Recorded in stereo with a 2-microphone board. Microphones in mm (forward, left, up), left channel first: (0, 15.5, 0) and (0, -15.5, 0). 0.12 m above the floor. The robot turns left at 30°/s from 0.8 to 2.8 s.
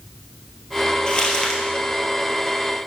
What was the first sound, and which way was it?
Crumpling, 30° left (ahead or behind).